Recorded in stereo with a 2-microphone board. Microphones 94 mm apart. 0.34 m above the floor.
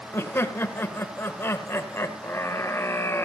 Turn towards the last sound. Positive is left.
turn(degrees=25)  # may be behind; listen again after turning